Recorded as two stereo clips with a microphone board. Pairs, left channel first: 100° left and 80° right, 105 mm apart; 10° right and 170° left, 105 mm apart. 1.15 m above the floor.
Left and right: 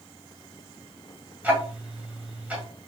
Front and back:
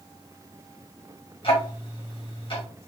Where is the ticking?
5° right, 1.5 m.